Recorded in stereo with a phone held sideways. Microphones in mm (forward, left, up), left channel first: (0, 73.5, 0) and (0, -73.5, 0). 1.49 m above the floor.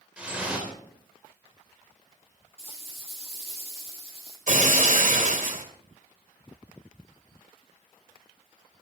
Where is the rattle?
40° left (ahead or behind), 9.5 m.